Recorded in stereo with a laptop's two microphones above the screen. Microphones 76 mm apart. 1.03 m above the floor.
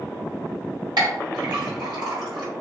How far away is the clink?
About 1.3 m.